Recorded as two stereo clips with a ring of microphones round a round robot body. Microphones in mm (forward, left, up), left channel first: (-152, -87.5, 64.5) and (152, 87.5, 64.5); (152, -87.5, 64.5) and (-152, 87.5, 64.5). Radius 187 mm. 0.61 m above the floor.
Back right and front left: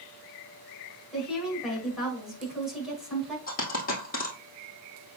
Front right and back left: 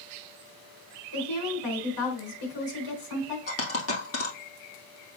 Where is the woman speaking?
60° right, 5.5 m.